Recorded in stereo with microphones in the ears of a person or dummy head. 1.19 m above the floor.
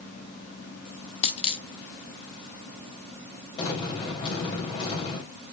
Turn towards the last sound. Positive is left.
turn(degrees=25)  # may be behind; listen again after turning